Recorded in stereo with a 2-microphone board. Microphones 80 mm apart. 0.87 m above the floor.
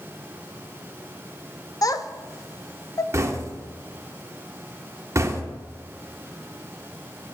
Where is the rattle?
No rattle in this recording.